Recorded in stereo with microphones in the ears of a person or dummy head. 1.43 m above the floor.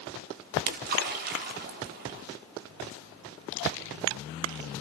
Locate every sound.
0.5 s a splash: 60° right (ahead or behind), 3 m